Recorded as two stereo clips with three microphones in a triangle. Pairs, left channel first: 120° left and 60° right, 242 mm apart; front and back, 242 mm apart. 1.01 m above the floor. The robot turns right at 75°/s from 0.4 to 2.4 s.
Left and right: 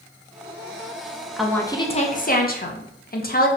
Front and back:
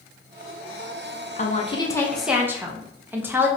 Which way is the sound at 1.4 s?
25° left.